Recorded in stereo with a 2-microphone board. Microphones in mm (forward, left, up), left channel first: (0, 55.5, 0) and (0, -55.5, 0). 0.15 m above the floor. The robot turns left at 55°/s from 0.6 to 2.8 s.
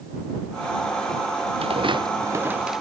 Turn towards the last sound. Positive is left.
turn(degrees=0)  # may be behind; listen again after turning